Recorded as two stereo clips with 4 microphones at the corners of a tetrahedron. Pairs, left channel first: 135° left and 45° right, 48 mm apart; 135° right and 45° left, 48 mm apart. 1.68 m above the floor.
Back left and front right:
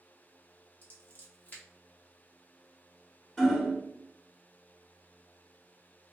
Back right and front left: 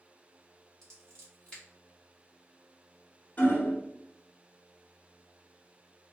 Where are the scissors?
155° left, 1.5 m.